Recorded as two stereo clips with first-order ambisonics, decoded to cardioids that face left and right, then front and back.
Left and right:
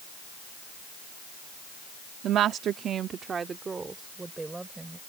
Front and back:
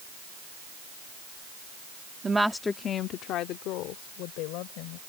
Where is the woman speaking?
115° right; by 5.0 s 10° right.